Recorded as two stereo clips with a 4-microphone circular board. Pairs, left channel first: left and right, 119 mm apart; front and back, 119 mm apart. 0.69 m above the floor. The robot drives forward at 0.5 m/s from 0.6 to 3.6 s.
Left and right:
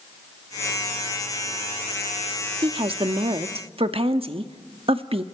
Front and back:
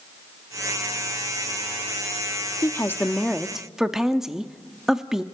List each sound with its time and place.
2.6 s a woman speaking: 60° right, 1.0 m; by 5.2 s 95° right, 0.9 m